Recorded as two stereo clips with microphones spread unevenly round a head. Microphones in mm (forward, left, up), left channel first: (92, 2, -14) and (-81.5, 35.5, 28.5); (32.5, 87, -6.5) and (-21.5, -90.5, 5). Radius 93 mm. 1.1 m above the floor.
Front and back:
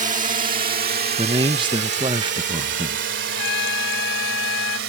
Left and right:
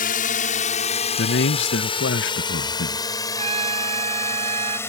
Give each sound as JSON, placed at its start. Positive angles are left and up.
{"t": 0.0, "sound": "a drone", "azimuth_deg": 120}
{"t": 1.2, "sound": "a man speaking", "azimuth_deg": 100}
{"t": 3.3, "sound": "a trumpet", "azimuth_deg": -45}